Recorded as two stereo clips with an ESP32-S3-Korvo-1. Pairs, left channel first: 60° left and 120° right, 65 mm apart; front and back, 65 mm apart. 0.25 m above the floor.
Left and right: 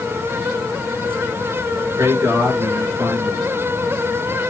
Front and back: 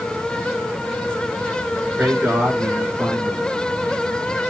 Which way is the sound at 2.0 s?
120° right.